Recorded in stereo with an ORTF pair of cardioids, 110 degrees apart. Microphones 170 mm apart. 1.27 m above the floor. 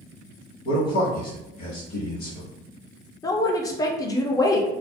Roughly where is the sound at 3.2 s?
Ahead.